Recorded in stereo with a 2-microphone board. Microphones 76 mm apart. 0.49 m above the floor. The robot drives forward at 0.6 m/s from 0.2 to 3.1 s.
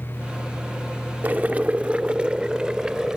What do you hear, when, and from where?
1.2 s boiling: 20° right (ahead or behind); by 3.2 s 10° right (ahead or behind)